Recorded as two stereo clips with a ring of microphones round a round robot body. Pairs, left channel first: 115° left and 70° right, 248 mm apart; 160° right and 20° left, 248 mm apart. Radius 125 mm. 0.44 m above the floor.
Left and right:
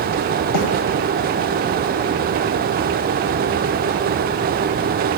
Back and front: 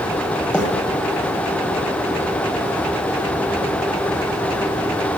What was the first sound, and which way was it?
A bird, 115° left.